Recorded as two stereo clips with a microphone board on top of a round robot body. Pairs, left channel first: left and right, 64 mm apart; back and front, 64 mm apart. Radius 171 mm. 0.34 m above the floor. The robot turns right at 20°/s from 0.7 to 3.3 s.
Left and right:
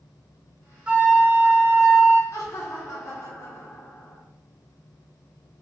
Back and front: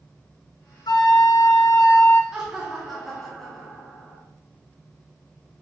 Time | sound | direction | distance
0.9 | a flute | 165° right | 0.6 m
2.3 | laughter | 80° left | 1.2 m